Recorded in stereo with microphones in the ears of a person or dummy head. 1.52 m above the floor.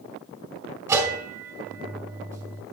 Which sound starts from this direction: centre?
A bell, at 0.9 s.